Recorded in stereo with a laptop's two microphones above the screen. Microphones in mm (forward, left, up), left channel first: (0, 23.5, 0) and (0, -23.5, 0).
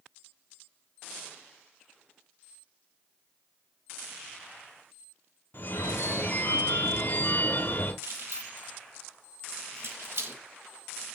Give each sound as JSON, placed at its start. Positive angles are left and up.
{"t": 5.5, "sound": "a phone ringing", "side_deg": 50, "distance_m": 1.2}
{"t": 8.0, "sound": "keys jangling", "side_deg": -55, "distance_m": 0.9}